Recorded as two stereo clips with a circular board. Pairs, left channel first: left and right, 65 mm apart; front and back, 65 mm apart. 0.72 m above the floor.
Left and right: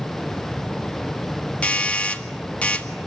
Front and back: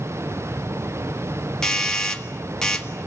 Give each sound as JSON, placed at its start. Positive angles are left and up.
{"t": 1.6, "sound": "a doorbell", "azimuth_deg": 60, "distance_m": 1.6}